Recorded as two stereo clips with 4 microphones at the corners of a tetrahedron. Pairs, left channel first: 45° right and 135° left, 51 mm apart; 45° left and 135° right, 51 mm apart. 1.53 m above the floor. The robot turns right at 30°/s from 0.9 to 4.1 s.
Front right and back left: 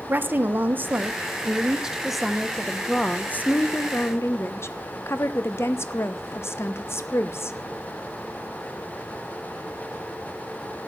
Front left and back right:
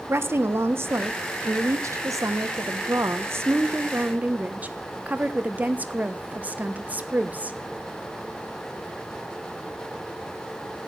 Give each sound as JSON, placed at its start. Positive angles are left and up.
{"t": 0.1, "sound": "a woman speaking", "azimuth_deg": -170, "distance_m": 1.2}